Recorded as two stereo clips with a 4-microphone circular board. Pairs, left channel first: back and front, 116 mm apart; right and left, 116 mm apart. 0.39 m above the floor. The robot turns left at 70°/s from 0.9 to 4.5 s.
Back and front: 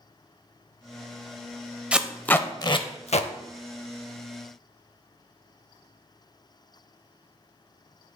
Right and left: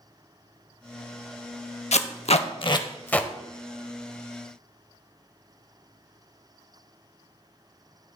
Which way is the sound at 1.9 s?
80° right.